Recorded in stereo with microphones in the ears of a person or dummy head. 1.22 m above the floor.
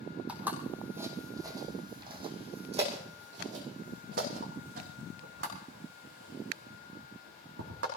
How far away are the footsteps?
About 2.5 m.